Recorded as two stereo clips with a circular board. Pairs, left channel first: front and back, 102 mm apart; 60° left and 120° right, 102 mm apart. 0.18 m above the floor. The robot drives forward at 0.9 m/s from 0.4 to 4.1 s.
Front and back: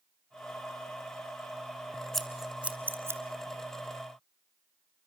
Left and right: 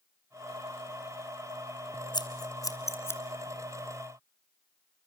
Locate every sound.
2.1 s scissors: 85° left, 1.7 m; by 3.2 s 125° left, 1.8 m